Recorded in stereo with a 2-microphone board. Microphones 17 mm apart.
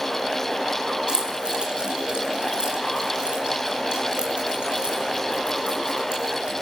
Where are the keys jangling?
60° right (ahead or behind), 5 m; by 6.5 s 80° right, 8 m.